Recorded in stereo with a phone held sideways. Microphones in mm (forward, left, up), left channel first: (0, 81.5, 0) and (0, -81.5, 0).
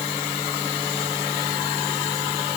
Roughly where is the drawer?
No drawer in this recording.